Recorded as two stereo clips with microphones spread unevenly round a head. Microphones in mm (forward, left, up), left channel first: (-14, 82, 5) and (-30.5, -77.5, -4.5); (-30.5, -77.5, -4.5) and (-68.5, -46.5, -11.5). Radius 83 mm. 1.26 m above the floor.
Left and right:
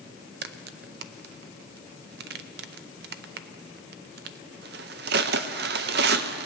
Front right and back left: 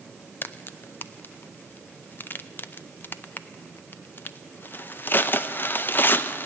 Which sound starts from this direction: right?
A crack, at 0.4 s.